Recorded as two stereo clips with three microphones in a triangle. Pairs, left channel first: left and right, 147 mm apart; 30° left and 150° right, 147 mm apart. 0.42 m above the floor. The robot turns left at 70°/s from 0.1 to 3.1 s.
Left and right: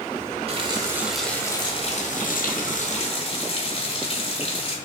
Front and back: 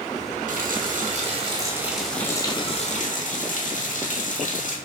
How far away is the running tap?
About 1.4 m.